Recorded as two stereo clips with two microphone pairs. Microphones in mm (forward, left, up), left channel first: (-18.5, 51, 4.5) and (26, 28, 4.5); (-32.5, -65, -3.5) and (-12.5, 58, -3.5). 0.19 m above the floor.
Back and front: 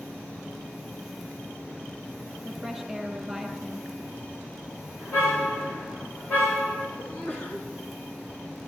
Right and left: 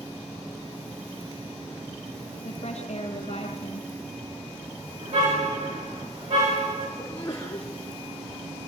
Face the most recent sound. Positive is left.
turn(degrees=-160)